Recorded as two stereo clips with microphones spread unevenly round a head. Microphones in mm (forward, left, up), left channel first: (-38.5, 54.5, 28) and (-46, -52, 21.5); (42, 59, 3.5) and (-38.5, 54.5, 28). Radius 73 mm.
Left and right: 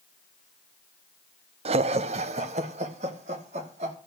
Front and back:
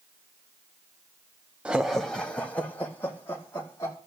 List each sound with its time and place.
1.6 s laughter: 90° right, 0.7 m; by 4.0 s 65° right, 2.5 m